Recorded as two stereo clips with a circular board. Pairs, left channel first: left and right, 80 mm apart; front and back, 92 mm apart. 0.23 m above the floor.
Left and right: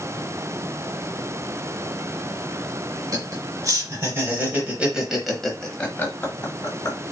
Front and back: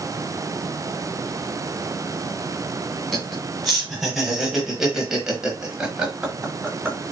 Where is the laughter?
90° right, 1.6 m; by 7.0 s 105° left, 1.4 m.